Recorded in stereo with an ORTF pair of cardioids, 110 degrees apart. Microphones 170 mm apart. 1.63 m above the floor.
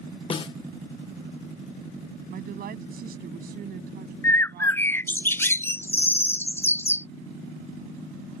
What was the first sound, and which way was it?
A snare drum, 30° left.